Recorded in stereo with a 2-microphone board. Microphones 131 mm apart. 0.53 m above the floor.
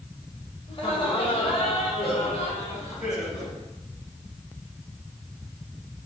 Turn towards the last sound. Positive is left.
turn(degrees=60)  # may be behind; listen again after turning